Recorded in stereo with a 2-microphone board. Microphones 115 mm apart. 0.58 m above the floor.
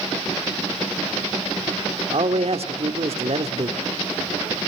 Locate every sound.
2.1 s a man speaking: 55° right (ahead or behind), 1.5 m